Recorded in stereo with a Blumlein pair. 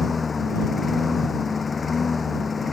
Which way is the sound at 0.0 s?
15° left.